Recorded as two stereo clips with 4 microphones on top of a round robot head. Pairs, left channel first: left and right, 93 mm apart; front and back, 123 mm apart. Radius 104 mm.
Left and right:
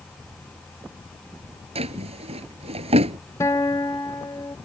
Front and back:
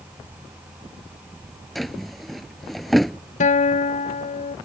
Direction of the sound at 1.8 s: 90° right.